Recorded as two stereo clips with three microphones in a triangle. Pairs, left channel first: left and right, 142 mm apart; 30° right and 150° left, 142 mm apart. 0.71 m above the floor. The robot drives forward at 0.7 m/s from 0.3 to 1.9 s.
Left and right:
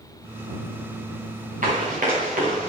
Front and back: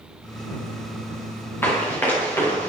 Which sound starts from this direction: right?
Running footsteps, at 1.6 s.